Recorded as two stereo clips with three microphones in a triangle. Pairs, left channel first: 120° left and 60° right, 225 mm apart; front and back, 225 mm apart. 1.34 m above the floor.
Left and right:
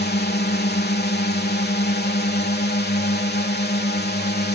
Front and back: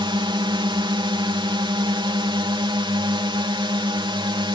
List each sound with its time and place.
0.0 s a drone: 120° left